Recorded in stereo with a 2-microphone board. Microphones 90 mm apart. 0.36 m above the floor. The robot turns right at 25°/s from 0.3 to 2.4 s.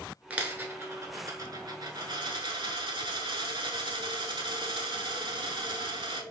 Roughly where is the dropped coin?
Behind.